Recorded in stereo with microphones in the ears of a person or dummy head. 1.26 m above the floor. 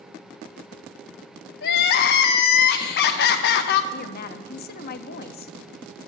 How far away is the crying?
About 0.7 m.